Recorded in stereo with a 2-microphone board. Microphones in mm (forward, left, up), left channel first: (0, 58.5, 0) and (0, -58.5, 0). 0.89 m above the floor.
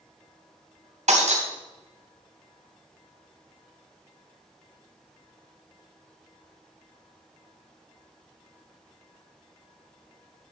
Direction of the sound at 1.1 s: 80° right.